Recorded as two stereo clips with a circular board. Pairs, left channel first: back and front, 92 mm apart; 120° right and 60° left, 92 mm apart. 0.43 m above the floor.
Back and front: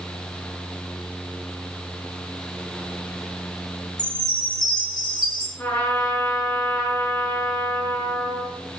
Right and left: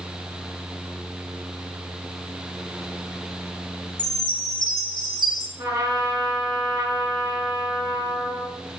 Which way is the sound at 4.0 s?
150° right.